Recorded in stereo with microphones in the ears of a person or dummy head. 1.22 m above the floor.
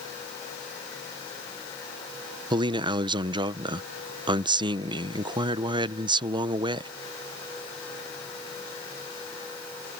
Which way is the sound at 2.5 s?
20° right (ahead or behind).